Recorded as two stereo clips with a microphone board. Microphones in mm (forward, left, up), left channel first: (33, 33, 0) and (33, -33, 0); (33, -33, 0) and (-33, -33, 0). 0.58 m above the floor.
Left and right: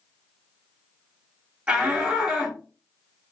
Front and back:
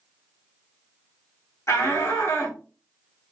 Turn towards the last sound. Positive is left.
turn(degrees=-25)